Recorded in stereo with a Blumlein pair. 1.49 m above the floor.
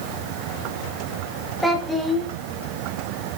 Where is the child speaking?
5° left, 1.9 m.